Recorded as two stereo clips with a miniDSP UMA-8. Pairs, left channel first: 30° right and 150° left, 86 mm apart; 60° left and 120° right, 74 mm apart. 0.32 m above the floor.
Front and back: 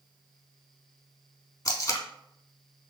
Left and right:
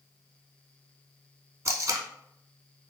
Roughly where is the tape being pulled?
Right.